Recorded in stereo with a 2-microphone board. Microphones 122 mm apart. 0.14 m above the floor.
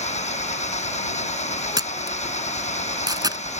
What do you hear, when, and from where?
0.0 s an engine running: 70° left (ahead or behind)
1.8 s a camera shutter: 35° right (ahead or behind)